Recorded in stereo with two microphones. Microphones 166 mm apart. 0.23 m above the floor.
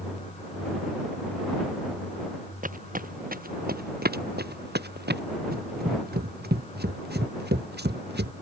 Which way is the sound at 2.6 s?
55° right (ahead or behind).